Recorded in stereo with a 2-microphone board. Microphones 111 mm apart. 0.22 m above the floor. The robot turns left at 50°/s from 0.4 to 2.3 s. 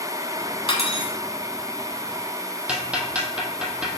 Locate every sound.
0.7 s cutlery clinking: 55° left (ahead or behind), 1.1 m
2.7 s ticking: 10° right (ahead or behind), 1.5 m